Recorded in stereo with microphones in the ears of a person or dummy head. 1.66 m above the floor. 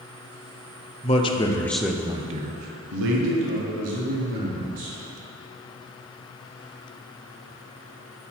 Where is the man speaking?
30° left (ahead or behind), 0.9 m; by 5.0 s 85° right, 1.9 m.